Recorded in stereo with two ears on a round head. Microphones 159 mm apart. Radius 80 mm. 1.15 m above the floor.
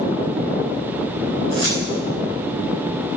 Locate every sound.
1.5 s keys jangling: 90° left, 7 m